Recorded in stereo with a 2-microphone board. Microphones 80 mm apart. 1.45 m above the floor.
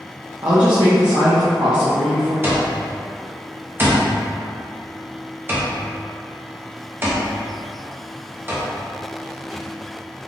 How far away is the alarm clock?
About 0.7 m.